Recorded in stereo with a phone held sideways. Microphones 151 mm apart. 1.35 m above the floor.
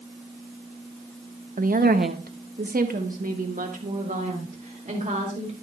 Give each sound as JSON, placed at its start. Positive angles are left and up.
{"t": 1.6, "sound": "a woman speaking", "side_deg": -60, "distance_m": 0.7}